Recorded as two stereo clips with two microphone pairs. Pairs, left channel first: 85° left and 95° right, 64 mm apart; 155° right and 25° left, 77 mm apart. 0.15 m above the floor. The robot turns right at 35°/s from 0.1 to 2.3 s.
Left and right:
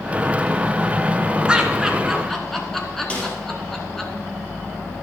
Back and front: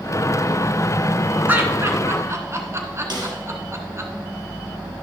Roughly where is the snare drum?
Ahead.